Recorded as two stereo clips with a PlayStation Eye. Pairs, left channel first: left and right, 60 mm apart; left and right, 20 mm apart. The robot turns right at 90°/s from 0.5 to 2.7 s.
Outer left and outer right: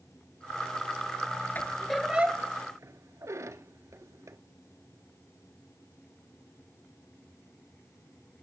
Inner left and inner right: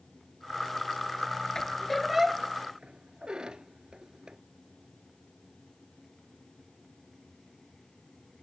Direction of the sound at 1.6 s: 35° left (ahead or behind).